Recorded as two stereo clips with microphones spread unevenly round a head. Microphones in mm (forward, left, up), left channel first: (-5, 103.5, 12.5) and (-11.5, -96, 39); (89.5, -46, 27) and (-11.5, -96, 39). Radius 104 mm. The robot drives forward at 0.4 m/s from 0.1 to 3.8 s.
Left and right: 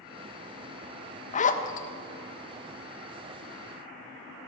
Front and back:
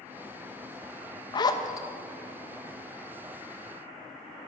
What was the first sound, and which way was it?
A zipper, 60° left.